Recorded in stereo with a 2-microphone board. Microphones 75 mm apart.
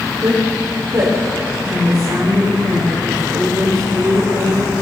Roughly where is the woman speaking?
Right.